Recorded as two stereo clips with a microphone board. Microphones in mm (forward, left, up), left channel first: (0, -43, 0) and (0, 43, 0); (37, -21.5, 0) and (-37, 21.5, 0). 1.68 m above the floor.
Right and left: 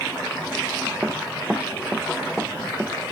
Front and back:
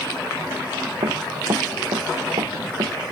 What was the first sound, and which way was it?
Running footsteps, 170° left.